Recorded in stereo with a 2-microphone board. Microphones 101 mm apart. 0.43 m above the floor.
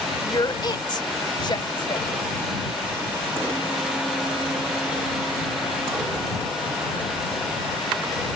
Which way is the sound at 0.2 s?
45° left (ahead or behind).